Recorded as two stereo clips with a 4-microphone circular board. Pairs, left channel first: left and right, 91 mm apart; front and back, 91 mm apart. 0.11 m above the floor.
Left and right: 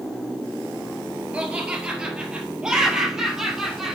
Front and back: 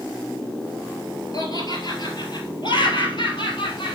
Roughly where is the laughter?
Ahead.